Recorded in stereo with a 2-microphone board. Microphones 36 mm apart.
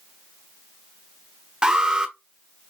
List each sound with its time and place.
1.6 s an alarm: 25° right (ahead or behind), 0.8 m